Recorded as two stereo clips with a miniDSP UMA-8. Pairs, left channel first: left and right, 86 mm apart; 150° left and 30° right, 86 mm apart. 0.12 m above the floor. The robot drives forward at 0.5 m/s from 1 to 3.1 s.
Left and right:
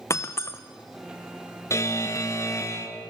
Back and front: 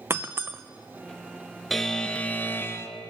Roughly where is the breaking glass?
Ahead left.